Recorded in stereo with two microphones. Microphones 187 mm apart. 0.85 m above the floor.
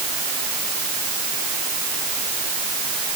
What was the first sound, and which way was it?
Only background noise.